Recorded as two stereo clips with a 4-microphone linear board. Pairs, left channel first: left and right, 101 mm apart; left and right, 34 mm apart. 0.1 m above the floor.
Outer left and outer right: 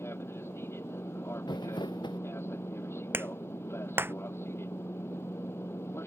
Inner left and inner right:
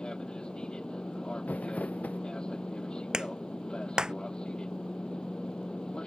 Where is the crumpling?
50° left (ahead or behind).